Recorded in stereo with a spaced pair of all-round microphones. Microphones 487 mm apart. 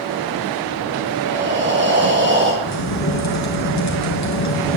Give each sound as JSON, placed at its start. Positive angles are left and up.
{"t": 1.2, "sound": "breathing", "side_deg": -20, "distance_m": 2.5}
{"t": 2.6, "sound": "a crack", "side_deg": 35, "distance_m": 2.5}